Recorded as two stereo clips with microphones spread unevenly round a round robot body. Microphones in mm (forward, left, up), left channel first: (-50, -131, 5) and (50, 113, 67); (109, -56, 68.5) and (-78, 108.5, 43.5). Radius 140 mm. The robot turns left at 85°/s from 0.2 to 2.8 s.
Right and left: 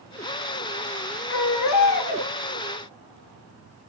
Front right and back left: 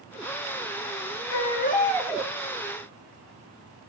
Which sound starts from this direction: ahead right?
A baby crying, at 1.3 s.